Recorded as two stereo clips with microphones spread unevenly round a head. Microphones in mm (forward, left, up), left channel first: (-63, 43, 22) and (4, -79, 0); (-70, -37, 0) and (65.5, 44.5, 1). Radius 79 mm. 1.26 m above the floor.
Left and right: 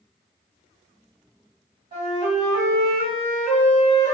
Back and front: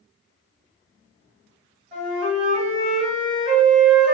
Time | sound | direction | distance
1.9 | a flute | 5° right | 1.5 m